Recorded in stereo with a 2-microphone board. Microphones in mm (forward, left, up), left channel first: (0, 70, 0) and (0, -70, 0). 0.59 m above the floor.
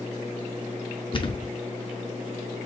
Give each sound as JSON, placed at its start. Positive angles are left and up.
{"t": 1.1, "sound": "a thud", "side_deg": 35, "distance_m": 0.5}